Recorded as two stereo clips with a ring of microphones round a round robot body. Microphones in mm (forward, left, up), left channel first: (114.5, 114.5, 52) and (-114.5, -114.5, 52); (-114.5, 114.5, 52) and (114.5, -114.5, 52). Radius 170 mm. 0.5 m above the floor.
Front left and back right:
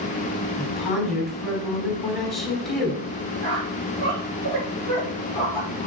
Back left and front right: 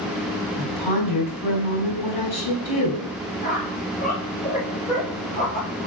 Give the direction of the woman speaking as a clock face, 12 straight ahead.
7 o'clock.